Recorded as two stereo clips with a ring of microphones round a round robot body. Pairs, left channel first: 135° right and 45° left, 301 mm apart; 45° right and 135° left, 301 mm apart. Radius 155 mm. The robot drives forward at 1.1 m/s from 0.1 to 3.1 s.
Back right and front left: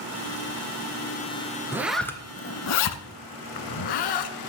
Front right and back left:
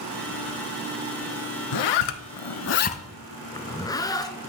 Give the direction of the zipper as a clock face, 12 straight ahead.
1 o'clock.